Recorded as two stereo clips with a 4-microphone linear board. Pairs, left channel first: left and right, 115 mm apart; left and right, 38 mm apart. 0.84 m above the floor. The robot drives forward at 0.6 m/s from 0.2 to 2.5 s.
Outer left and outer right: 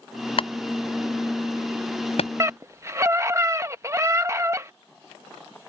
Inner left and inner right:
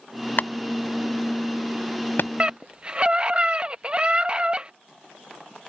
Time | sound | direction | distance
0.4 | a clap | 55° left (ahead or behind) | ?
2.4 | a scream | 25° right (ahead or behind) | ?